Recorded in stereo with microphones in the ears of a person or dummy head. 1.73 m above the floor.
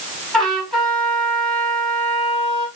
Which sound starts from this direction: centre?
A trumpet, at 0.3 s.